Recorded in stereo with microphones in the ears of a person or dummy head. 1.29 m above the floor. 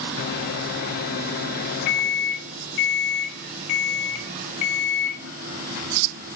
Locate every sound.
0.2 s a microwave: 60° left (ahead or behind), 1.3 m